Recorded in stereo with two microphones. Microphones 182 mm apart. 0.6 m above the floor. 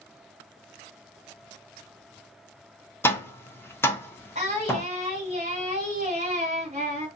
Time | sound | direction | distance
3.0 | tapping | 10° left (ahead or behind) | 0.6 m
4.3 | singing | 35° right (ahead or behind) | 1.7 m